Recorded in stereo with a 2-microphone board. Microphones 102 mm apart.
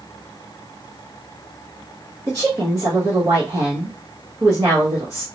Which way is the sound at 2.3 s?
30° right (ahead or behind).